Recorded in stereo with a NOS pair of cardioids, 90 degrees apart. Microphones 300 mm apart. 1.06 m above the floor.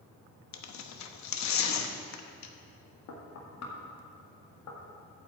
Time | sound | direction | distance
0.5 | tearing paper | 70° left | 1.0 m
3.1 | knocking | 65° left | 1.9 m